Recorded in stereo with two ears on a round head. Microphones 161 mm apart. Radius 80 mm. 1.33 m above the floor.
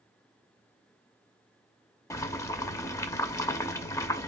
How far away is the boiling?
About 0.5 m.